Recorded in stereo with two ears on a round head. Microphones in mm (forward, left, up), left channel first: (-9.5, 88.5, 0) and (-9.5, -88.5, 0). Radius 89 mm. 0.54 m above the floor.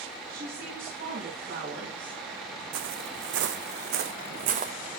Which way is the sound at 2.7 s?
70° right (ahead or behind).